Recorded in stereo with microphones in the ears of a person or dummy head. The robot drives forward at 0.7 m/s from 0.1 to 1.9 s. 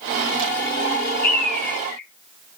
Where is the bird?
10° left (ahead or behind), 4 m.